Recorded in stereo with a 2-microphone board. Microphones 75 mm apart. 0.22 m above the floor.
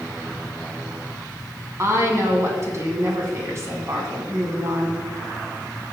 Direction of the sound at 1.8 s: 40° right (ahead or behind).